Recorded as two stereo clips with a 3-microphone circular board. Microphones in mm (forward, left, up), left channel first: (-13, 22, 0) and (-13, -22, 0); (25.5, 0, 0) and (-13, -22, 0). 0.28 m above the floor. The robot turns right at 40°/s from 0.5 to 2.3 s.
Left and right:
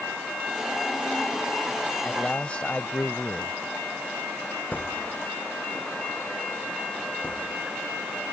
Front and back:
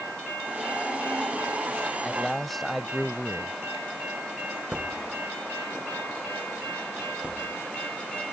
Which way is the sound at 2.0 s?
105° left.